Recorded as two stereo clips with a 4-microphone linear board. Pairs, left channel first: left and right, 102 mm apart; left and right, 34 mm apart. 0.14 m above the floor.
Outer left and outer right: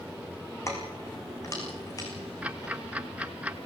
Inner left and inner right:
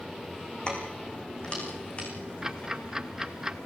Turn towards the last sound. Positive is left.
turn(degrees=-15)  # may be behind; listen again after turning